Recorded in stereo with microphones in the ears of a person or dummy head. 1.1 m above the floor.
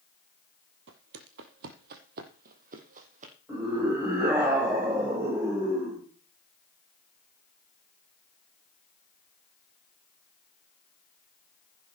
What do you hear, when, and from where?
0.9 s footsteps: 60° right (ahead or behind), 2 m; by 3.3 s 45° right (ahead or behind), 3.5 m
3.5 s a scream: 15° right (ahead or behind), 5 m